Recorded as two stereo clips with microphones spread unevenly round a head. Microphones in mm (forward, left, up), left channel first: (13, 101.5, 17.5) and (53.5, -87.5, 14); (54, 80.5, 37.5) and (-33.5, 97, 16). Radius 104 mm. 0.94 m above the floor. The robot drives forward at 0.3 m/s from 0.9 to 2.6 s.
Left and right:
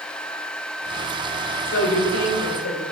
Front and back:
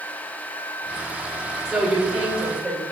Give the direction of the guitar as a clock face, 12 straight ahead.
No guitar in this recording.